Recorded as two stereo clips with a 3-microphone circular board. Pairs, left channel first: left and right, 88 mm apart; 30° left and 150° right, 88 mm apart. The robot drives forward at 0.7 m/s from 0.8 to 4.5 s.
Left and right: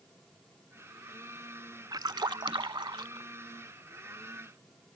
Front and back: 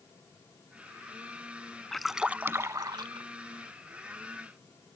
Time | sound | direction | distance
1.9 | a splash | 55° right | ?